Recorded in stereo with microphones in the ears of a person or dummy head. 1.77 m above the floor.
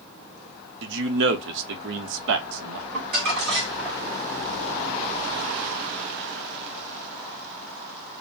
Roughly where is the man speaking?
Right.